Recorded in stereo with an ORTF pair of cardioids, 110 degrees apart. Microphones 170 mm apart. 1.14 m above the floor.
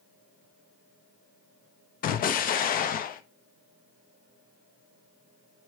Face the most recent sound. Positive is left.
turn(degrees=55)